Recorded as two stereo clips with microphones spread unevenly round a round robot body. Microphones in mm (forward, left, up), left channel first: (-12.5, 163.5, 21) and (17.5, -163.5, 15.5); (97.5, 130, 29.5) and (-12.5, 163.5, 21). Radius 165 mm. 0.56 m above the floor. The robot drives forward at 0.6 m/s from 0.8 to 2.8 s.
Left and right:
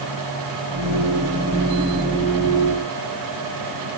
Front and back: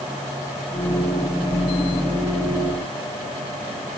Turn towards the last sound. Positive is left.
No sound to turn to.